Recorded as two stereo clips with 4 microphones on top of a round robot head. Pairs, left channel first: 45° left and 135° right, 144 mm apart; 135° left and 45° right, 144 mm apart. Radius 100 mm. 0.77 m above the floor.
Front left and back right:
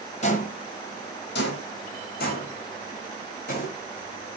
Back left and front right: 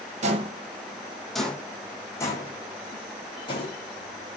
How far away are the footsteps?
About 1.6 m.